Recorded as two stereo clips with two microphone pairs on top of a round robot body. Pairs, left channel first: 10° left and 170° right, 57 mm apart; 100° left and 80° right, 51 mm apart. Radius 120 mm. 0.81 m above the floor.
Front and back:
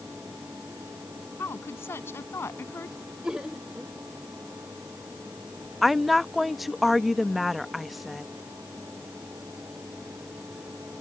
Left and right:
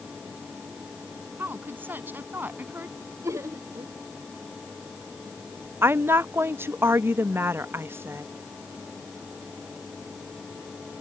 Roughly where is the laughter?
Right.